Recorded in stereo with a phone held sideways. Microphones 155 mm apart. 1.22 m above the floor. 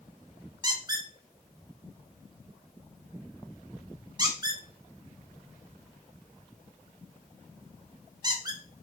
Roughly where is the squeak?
Right.